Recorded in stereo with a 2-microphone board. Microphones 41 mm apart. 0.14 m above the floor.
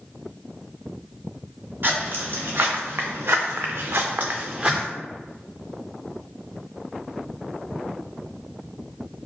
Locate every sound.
1.8 s footsteps: 55° right (ahead or behind), 1.3 m; by 4.9 s 15° right (ahead or behind), 0.7 m